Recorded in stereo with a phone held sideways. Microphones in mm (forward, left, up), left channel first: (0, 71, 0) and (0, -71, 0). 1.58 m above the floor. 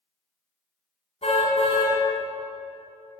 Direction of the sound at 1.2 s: 45° left (ahead or behind).